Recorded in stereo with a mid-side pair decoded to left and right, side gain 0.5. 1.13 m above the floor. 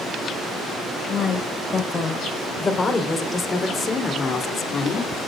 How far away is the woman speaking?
About 5 m.